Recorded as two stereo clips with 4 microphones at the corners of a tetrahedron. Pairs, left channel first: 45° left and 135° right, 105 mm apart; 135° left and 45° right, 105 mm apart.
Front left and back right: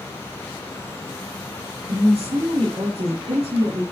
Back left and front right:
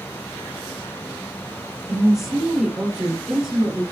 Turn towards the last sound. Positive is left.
turn(degrees=-135)